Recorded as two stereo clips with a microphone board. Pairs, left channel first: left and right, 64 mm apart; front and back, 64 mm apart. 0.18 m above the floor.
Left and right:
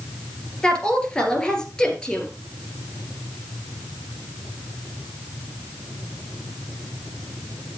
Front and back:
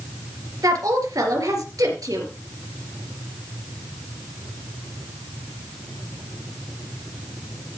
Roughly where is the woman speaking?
Behind.